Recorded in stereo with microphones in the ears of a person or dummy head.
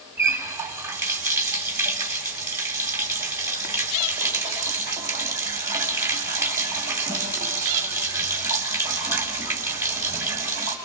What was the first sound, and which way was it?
A running tap, 15° right (ahead or behind).